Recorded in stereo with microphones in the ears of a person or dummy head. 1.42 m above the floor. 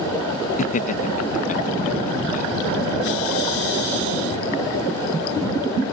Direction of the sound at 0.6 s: 35° left (ahead or behind).